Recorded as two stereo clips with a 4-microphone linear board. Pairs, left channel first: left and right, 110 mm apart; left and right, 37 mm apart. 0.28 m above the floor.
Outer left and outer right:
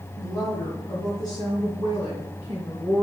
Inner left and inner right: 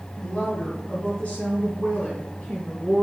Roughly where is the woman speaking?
Left.